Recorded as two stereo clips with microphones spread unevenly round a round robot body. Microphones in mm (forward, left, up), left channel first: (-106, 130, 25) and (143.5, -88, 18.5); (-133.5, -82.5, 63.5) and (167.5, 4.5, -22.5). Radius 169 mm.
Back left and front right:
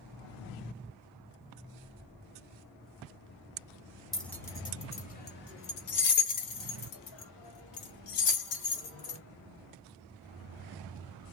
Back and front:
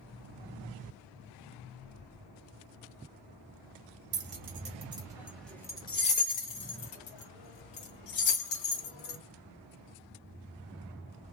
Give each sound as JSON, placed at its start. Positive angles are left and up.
{"t": 4.1, "sound": "keys jangling", "azimuth_deg": 50, "distance_m": 1.3}